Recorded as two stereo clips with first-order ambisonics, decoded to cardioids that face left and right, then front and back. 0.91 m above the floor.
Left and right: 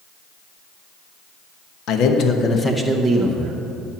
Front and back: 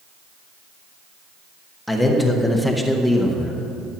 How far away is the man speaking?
About 1.2 m.